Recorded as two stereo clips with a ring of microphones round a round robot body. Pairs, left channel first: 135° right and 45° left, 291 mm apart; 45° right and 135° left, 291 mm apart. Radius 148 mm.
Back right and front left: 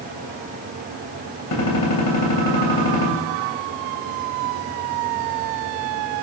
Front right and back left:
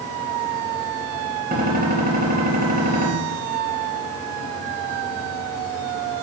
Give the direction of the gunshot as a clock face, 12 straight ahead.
5 o'clock.